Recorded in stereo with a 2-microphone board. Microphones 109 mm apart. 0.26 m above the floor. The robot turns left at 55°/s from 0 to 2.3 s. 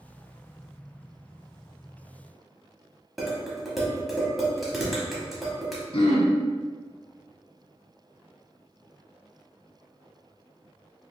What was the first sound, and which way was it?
Dishes clattering, centre (ahead or behind).